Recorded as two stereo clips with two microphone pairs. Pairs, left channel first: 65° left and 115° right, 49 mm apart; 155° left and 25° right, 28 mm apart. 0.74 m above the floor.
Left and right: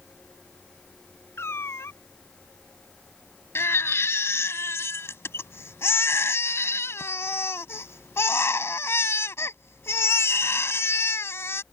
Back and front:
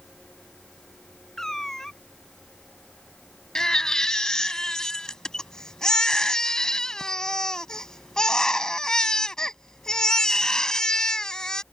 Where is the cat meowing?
85° left.